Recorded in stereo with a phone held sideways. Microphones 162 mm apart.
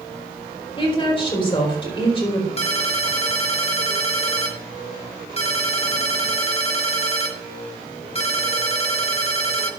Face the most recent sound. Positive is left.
turn(degrees=40)  # may be behind; listen again after turning